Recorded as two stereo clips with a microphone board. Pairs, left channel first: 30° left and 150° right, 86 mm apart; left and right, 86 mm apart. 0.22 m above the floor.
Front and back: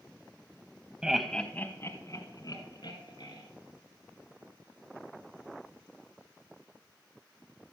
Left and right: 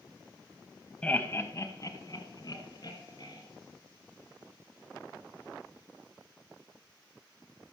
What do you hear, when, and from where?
1.0 s laughter: 145° left, 1.0 m; by 3.4 s 55° left, 3 m